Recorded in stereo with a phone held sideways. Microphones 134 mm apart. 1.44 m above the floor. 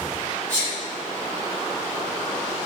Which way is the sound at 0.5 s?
15° left (ahead or behind).